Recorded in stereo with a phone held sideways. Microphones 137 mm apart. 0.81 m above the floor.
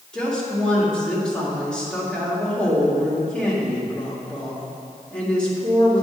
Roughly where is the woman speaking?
Centre.